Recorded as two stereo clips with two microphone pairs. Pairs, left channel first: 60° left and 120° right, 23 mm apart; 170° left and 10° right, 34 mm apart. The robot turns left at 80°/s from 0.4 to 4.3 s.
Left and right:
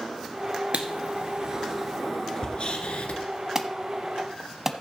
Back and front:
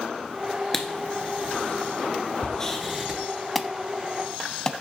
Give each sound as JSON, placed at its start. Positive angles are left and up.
{"t": 0.7, "sound": "writing", "azimuth_deg": -110, "distance_m": 1.6}
{"t": 3.5, "sound": "an alarm", "azimuth_deg": -100, "distance_m": 0.9}